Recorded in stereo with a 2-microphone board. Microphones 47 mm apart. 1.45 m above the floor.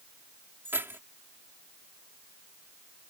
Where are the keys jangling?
55° right (ahead or behind).